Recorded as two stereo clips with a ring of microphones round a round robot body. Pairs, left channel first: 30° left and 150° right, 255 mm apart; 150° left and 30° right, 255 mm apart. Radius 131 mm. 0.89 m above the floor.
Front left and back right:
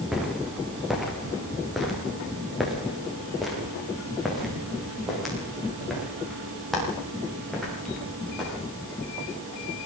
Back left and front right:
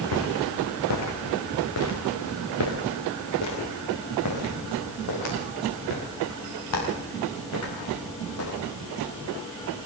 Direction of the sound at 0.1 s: 120° left.